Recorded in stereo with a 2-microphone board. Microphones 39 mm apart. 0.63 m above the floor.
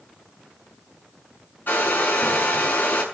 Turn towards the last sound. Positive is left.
turn(degrees=55)  # may be behind; listen again after turning